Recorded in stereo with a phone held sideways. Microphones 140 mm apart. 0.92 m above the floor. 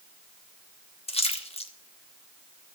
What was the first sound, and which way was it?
A splash, 45° left (ahead or behind).